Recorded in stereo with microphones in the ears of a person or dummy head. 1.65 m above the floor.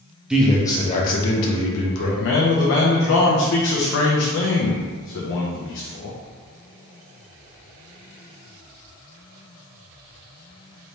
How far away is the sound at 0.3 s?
About 0.7 m.